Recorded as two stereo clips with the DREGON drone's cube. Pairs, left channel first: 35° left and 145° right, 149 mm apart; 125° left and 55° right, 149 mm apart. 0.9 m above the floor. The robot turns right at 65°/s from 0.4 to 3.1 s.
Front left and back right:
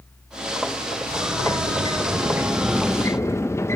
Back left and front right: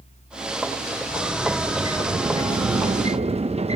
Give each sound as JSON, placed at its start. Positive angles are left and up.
{"t": 1.1, "sound": "a sliding door", "azimuth_deg": -165, "distance_m": 0.6}